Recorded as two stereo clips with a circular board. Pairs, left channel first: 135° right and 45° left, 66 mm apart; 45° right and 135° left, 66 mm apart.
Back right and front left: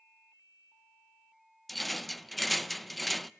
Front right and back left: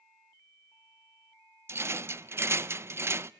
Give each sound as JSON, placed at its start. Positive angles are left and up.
{"t": 1.7, "sound": "a rattle", "azimuth_deg": 135, "distance_m": 0.5}